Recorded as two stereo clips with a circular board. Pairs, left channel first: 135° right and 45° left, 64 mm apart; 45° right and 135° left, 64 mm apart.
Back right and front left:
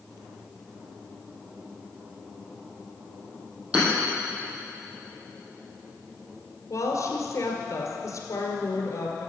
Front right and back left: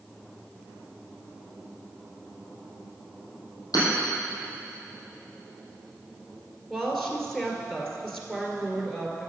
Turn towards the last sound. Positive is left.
turn(degrees=-130)